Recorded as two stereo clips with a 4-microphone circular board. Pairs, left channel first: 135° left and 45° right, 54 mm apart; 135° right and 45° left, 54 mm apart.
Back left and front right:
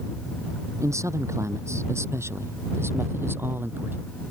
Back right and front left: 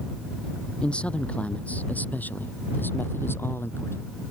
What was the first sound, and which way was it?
A man speaking, 60° right.